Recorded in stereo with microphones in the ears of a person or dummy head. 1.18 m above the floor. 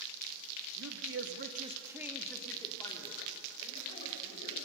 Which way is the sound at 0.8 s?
85° right.